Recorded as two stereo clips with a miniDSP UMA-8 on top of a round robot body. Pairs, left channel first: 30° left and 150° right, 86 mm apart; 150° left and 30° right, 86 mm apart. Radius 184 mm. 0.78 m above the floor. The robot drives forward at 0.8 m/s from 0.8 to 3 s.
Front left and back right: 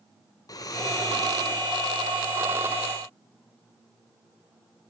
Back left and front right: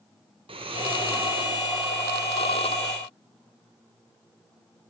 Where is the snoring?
20° right, 1.4 m; by 1.6 s 35° right, 0.8 m.